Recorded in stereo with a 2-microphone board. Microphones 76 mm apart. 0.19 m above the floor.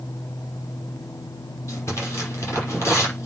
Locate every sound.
1.7 s tearing paper: 40° left (ahead or behind), 6.5 m